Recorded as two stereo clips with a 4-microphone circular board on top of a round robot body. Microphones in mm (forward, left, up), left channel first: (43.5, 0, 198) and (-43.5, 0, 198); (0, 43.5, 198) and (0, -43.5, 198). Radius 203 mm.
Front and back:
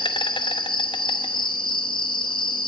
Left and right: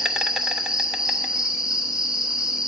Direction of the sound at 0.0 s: 10° right.